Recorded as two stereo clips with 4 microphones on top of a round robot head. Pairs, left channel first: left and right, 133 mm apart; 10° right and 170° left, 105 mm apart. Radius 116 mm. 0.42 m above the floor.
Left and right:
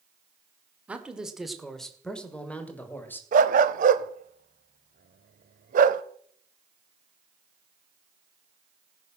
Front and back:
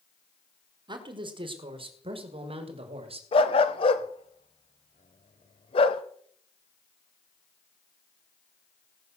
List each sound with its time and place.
0.9 s a man speaking: 170° right, 1.6 m; by 3.2 s 165° left, 2.5 m
3.3 s a dog barking: 60° right, 0.5 m